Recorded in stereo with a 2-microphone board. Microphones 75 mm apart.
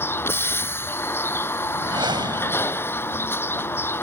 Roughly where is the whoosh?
Right.